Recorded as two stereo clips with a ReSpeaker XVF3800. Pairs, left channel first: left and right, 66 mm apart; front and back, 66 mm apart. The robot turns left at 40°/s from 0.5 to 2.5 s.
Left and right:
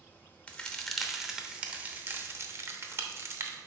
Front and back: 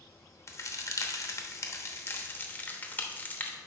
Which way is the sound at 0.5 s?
20° left.